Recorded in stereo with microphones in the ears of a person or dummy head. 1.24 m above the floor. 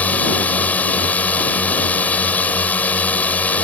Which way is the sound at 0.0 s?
15° left (ahead or behind).